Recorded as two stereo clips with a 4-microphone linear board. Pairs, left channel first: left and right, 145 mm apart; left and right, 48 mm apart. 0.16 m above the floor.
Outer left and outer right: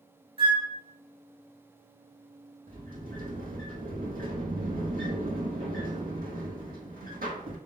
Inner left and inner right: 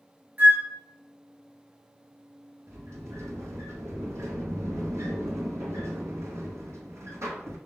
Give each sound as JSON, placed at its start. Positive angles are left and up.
{"t": 0.4, "sound": "a flute", "side_deg": -40, "distance_m": 2.5}
{"t": 2.7, "sound": "a sliding door", "side_deg": -85, "distance_m": 1.0}